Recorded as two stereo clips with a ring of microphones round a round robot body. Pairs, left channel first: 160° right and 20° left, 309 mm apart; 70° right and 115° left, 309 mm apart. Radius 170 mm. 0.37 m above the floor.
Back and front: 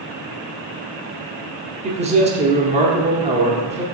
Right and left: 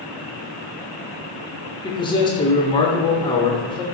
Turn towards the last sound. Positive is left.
turn(degrees=-15)